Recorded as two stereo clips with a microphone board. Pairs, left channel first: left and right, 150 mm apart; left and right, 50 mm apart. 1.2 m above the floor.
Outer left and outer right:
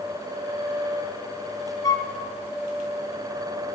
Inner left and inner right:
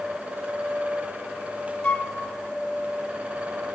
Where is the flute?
25° left (ahead or behind), 1.0 m.